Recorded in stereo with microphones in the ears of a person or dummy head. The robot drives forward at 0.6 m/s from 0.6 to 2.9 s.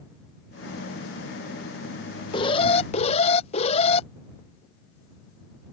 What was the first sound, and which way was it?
An alarm, 35° left (ahead or behind).